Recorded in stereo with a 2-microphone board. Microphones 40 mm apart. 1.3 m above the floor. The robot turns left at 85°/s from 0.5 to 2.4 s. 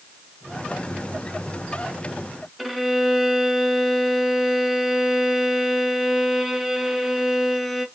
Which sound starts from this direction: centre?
A violin, at 2.6 s.